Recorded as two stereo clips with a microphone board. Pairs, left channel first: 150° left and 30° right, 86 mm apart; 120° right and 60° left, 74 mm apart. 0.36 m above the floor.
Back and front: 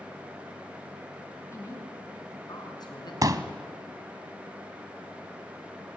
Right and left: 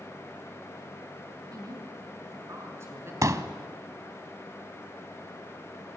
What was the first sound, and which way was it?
A woman speaking, 95° left.